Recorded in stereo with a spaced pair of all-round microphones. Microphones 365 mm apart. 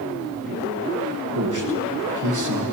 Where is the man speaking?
55° right (ahead or behind), 1.2 m.